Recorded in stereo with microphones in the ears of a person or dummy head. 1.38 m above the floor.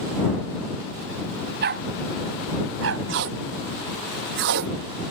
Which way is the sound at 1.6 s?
60° right (ahead or behind).